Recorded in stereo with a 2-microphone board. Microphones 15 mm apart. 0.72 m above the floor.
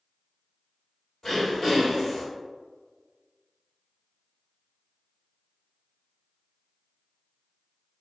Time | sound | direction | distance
1.2 | throat clearing | 30° left (ahead or behind) | 1.9 m